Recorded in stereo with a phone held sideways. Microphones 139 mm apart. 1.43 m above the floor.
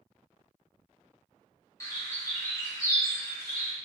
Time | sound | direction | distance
1.8 | a bird | 20° left (ahead or behind) | 0.7 m